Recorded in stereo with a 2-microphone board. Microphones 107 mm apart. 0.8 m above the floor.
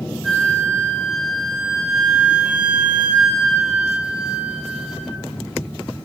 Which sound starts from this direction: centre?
A flute, at 0.2 s.